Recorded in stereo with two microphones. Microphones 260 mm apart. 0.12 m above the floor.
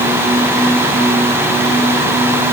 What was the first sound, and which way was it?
Only background noise.